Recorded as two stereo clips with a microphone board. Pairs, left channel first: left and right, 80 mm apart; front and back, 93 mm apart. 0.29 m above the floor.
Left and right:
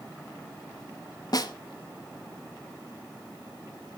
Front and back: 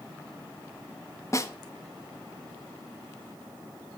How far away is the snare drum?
About 1.0 m.